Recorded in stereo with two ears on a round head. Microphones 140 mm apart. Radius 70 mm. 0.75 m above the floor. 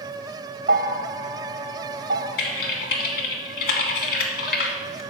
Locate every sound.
0.7 s a bell: 55° right (ahead or behind), 0.6 m
2.4 s typing on a keyboard: 70° left (ahead or behind), 1.5 m